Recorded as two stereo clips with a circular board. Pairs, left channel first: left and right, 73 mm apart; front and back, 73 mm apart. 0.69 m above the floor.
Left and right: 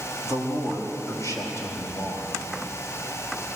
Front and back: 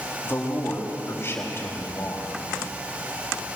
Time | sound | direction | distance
0.2 | a man speaking | 55° left | 4 m